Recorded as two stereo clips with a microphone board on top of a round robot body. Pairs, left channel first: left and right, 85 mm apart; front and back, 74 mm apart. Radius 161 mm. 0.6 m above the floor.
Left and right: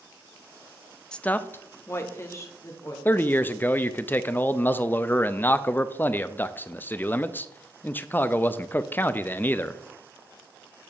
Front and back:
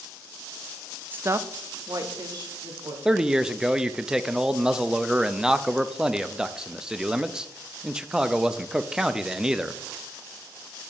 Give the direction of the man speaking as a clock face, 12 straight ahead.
8 o'clock.